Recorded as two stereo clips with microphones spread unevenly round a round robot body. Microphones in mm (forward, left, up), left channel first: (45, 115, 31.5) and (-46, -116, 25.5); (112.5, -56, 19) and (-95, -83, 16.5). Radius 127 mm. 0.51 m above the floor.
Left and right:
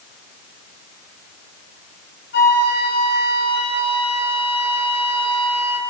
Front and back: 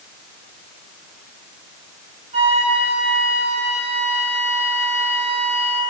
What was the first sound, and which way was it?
A flute, 120° left.